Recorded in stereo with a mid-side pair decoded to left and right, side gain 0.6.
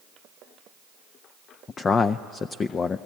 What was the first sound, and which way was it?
A man speaking, 35° left.